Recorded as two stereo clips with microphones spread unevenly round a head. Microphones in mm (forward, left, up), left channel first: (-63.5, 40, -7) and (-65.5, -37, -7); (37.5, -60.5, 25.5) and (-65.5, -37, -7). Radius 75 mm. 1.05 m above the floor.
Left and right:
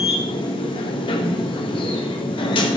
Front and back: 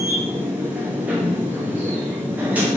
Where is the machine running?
90° left, 1.1 m.